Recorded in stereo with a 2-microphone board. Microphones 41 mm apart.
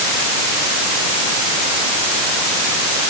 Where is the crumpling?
No crumpling in this recording.